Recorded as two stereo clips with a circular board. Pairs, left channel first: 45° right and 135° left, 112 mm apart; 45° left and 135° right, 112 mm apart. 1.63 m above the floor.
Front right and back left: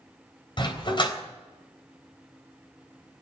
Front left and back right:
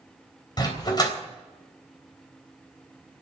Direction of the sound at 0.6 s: 5° right.